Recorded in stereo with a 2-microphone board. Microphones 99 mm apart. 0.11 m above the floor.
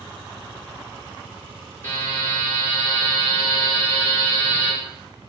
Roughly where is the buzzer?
Left.